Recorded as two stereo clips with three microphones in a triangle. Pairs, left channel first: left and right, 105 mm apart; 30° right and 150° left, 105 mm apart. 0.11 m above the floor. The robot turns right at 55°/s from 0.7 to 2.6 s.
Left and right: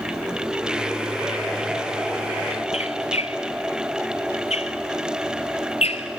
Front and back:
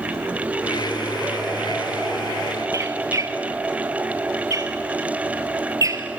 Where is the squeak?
95° left, 0.6 m.